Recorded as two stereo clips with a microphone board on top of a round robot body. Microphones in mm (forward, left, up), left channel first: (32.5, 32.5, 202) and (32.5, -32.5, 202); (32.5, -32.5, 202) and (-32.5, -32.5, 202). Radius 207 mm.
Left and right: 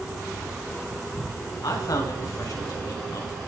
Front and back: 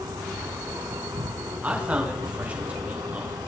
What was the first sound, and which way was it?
An insect, 175° right.